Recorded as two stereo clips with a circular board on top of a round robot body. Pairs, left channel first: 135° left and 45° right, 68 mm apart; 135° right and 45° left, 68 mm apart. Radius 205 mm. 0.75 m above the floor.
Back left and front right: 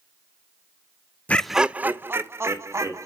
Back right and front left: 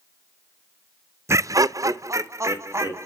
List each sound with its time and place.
1.3 s laughter: 75° left, 0.5 m; by 3.1 s straight ahead, 1.6 m